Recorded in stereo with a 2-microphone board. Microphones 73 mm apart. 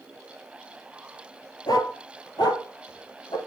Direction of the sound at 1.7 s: 75° left (ahead or behind).